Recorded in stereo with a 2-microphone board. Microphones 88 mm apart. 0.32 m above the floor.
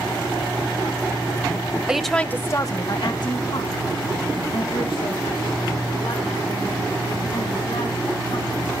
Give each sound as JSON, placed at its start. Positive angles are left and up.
{"t": 1.9, "sound": "a woman speaking", "side_deg": -10, "distance_m": 1.2}